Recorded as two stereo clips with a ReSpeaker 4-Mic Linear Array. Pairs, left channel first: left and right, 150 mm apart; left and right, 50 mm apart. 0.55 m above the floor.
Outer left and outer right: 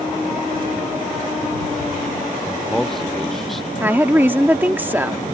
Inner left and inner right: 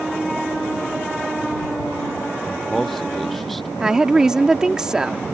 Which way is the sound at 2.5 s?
Centre (ahead or behind).